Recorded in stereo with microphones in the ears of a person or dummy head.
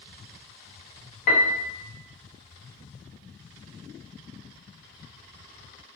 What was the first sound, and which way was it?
A piano, 50° left (ahead or behind).